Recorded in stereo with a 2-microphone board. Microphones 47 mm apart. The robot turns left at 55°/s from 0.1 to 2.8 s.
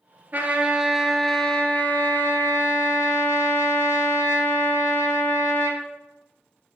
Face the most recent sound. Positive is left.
turn(degrees=90)